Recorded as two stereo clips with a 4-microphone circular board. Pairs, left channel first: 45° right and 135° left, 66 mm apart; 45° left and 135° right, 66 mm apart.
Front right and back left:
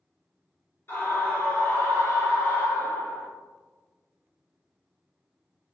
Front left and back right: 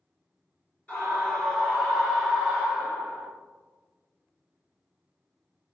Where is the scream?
15° right, 2.0 m; by 3.3 s 65° right, 2 m.